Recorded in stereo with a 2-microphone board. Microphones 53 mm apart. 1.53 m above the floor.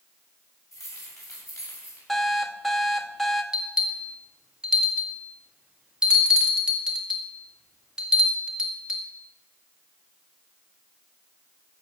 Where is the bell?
15° right (ahead or behind), 1.8 m.